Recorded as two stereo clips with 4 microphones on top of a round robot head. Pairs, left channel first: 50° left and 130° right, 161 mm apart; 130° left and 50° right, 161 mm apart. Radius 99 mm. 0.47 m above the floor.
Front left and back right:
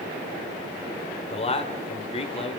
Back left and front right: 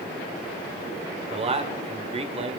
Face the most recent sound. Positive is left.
turn(degrees=0)